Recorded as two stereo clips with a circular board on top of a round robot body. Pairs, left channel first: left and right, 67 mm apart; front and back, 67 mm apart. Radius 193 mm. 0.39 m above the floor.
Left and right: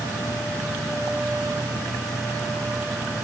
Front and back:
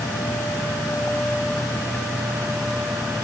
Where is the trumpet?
No trumpet in this recording.